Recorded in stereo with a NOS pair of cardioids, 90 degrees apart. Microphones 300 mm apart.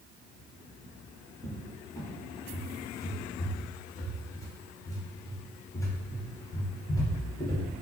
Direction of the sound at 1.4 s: 10° left.